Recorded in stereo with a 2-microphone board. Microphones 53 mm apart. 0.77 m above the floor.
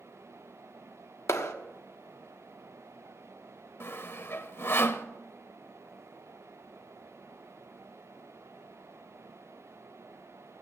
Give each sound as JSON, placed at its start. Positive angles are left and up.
{"t": 1.3, "sound": "a clap", "side_deg": 65, "distance_m": 1.2}
{"t": 3.8, "sound": "sawing", "side_deg": 50, "distance_m": 0.9}